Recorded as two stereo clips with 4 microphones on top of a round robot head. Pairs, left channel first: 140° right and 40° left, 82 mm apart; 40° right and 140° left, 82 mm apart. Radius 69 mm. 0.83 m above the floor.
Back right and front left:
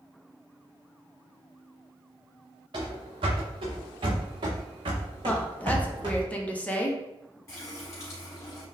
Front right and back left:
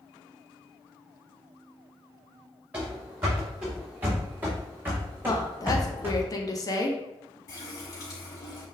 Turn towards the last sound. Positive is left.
turn(degrees=-85)